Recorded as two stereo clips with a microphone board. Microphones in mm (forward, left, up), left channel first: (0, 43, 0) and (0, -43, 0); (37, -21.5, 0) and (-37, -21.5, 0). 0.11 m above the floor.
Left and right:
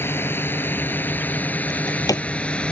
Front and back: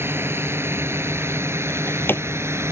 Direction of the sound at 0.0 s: 140° left.